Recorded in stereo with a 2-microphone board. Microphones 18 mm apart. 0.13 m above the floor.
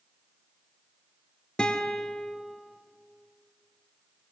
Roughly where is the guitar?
Left.